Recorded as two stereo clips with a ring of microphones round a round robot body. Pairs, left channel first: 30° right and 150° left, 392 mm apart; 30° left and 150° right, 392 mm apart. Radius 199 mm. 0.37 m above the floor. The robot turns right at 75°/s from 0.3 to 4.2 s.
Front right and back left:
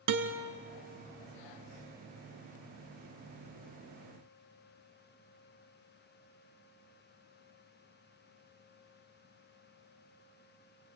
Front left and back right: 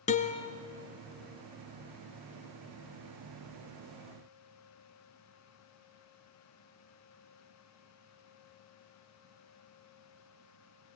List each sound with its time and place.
0.1 s a guitar: 105° left, 1.7 m; by 0.5 s 115° left, 1.7 m